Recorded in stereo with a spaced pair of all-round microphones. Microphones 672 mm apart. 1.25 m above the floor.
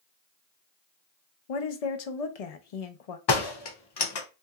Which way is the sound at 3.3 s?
40° left (ahead or behind).